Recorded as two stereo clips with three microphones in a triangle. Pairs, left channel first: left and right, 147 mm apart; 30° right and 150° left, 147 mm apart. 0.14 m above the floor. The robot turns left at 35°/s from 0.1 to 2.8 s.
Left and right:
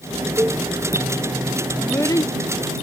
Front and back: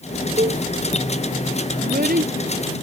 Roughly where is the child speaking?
Behind.